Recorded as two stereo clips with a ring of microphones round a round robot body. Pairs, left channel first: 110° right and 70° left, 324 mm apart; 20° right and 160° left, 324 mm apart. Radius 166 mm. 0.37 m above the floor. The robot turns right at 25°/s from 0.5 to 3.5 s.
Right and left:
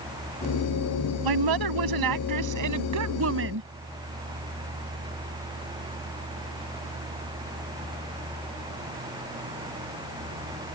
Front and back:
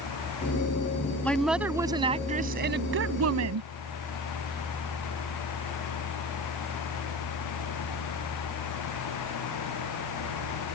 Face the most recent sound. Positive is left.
turn(degrees=120)